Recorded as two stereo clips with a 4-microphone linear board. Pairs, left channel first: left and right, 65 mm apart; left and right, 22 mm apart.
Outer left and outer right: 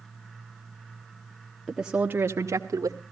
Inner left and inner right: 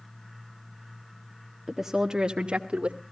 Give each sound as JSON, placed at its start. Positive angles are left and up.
{"t": 1.7, "sound": "a woman speaking", "side_deg": 0, "distance_m": 1.1}